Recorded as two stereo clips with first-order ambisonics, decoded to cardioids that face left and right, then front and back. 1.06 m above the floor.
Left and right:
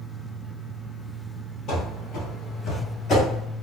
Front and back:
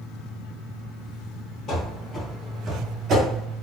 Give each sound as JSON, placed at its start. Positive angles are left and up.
{"t": 1.7, "sound": "running footsteps", "azimuth_deg": 45, "distance_m": 1.7}